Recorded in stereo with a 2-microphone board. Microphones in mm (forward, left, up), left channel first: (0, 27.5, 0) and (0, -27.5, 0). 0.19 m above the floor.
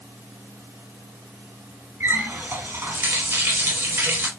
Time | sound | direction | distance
2.0 | a running tap | 45° right (ahead or behind) | 1.0 m